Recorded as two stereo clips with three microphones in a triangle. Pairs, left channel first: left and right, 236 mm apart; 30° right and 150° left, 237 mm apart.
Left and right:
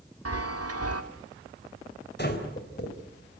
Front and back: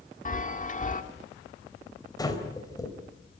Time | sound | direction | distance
0.2 | a chime | 90° right | 1.5 m
2.2 | breathing | 45° left | 3 m